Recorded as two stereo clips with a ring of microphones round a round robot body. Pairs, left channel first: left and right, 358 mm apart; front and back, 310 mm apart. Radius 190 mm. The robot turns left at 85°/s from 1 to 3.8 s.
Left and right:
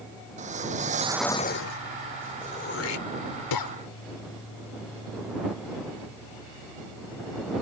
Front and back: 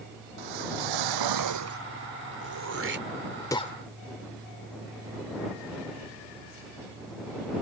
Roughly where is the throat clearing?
Behind.